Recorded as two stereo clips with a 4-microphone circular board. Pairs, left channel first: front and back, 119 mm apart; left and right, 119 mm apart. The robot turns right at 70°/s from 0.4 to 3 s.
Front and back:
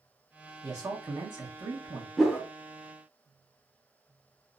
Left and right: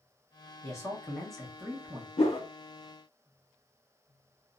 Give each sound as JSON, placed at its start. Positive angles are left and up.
{"t": 0.6, "sound": "a man speaking", "azimuth_deg": 130, "distance_m": 0.9}
{"t": 2.2, "sound": "a whoosh", "azimuth_deg": 90, "distance_m": 0.7}